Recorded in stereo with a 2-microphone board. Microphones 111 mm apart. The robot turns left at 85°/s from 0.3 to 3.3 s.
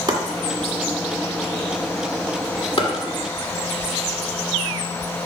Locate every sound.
0.1 s chopping: 40° right (ahead or behind), 1.6 m; by 2.9 s 45° left (ahead or behind), 1.6 m